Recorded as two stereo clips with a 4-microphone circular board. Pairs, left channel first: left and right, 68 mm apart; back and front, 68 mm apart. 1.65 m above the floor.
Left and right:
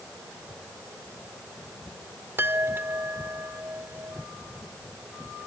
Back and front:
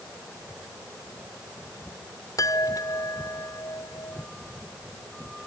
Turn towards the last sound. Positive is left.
turn(degrees=-145)